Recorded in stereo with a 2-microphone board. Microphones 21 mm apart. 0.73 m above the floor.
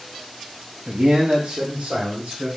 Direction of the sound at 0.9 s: 35° right (ahead or behind).